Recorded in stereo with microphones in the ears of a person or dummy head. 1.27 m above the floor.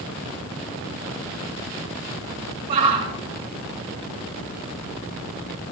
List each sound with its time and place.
2.7 s a shout: 45° right (ahead or behind), 2.5 m